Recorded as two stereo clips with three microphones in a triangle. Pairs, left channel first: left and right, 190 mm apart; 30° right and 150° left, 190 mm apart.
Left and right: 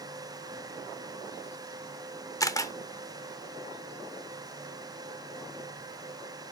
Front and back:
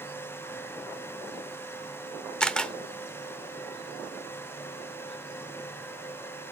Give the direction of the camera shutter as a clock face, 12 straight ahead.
10 o'clock.